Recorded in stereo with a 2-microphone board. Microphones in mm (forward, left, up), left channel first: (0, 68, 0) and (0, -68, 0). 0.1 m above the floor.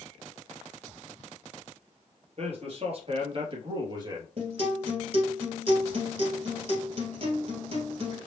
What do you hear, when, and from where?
2.4 s a man speaking: 50° right (ahead or behind), 2 m; by 4.3 s 30° right (ahead or behind), 2 m
4.4 s a guitar: 50° right (ahead or behind), 2 m